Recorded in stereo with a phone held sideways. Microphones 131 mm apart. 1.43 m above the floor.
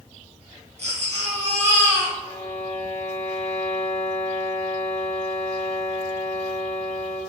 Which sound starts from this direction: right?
A baby crying, at 0.8 s.